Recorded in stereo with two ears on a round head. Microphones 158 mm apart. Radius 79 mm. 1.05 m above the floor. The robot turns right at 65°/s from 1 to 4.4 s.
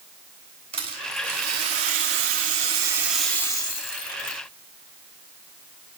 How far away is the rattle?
About 2.5 m.